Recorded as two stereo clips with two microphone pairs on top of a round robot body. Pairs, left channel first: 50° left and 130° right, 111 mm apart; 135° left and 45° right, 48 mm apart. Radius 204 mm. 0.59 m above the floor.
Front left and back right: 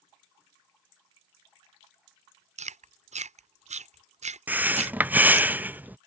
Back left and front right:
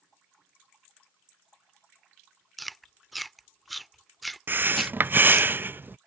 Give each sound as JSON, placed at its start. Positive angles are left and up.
{"t": 2.6, "sound": "chewing", "azimuth_deg": -135}
{"t": 4.5, "sound": "breathing", "azimuth_deg": -60}